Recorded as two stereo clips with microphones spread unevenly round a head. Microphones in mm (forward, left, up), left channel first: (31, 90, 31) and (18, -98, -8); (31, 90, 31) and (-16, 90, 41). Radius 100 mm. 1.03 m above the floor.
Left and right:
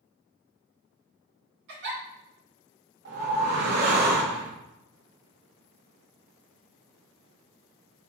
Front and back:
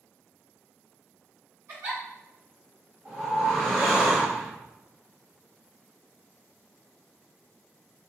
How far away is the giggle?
About 2.5 m.